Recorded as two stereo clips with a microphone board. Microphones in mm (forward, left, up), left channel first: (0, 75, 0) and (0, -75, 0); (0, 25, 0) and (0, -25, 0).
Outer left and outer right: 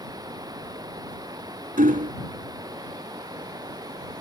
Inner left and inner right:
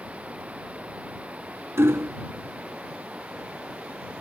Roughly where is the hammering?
Right.